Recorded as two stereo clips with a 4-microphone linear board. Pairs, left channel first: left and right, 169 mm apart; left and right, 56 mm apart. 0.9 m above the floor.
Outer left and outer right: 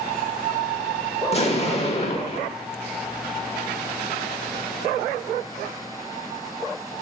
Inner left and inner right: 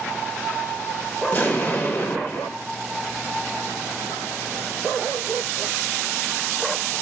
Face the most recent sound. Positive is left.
turn(degrees=40)  # may be behind; listen again after turning